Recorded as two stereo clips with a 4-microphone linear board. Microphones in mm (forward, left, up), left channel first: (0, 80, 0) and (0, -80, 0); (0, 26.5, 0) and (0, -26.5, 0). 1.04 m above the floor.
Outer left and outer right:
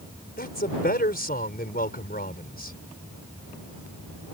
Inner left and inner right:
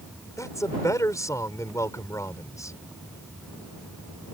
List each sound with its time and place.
0.4 s a man speaking: 75° left (ahead or behind)